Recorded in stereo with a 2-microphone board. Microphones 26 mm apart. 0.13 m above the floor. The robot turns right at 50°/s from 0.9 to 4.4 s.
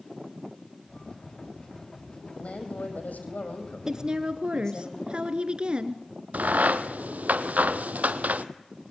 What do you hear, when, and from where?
2.4 s a woman speaking: 50° left, 4.5 m; by 4.9 s 155° left, 4.5 m
3.9 s a woman speaking: 25° right (ahead or behind), 1.9 m; by 6.0 s 40° right (ahead or behind), 1.9 m
6.3 s a crack: 80° right, 1.1 m